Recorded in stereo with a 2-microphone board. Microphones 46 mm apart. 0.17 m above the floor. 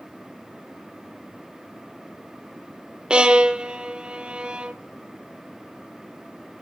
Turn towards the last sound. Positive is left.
turn(degrees=-20)  # may be behind; listen again after turning